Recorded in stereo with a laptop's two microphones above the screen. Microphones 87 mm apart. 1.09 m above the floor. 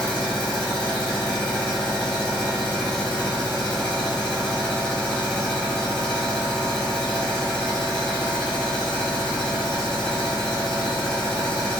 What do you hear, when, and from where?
0.0 s a machine running: 10° left (ahead or behind), 0.9 m